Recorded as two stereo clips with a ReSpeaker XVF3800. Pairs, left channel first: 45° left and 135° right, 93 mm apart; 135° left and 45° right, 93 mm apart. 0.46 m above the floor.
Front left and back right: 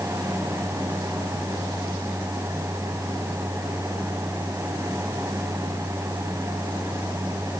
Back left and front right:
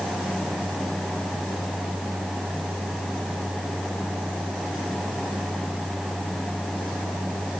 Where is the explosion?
I don't hear an explosion.